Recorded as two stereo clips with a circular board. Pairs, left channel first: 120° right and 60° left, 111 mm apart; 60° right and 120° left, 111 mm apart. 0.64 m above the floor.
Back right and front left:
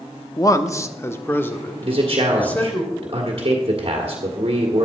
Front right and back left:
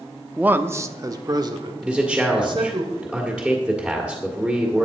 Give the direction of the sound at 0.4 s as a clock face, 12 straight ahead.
6 o'clock.